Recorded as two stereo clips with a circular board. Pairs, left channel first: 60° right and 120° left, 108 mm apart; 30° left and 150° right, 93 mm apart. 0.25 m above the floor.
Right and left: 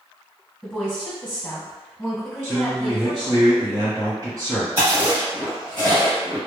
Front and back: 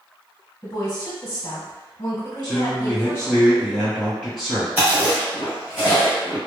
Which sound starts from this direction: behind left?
A man speaking, at 2.4 s.